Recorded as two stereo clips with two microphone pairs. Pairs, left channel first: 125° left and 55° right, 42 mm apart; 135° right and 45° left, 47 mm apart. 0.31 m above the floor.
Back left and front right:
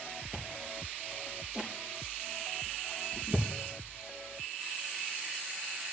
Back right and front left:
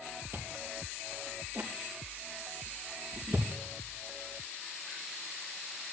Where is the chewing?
20° left, 4 m.